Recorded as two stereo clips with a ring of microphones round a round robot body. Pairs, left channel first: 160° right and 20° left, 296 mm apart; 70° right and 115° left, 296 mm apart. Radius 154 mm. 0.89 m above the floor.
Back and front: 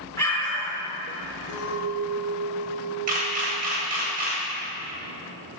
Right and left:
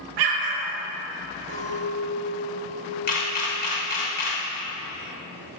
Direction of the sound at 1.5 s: Straight behind.